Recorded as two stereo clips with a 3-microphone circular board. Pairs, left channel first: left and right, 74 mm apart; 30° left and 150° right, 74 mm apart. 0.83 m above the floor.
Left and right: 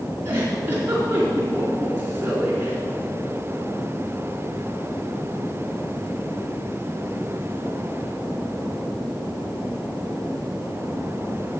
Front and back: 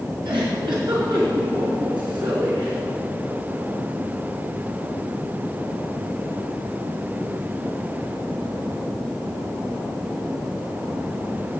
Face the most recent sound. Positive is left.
turn(degrees=-150)